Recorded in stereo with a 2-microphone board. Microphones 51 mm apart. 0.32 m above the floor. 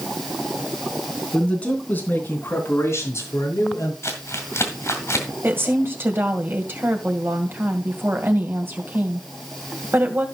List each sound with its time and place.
1.3 s a man speaking: 15° left (ahead or behind), 3.5 m; by 3.9 s 70° left (ahead or behind), 4.5 m
4.0 s crumpling: 60° left (ahead or behind), 2.5 m
5.4 s a woman speaking: 45° right (ahead or behind), 2 m